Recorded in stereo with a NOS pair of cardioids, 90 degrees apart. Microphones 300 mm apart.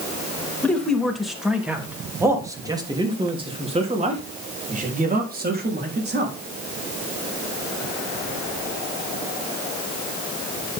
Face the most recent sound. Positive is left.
turn(degrees=-35)